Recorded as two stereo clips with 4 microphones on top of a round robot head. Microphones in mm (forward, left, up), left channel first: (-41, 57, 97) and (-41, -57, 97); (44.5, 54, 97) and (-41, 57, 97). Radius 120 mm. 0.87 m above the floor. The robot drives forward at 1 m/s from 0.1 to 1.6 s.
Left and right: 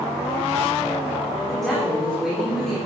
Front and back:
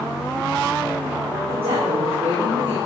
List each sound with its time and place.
1.5 s a woman speaking: straight behind, 2.5 m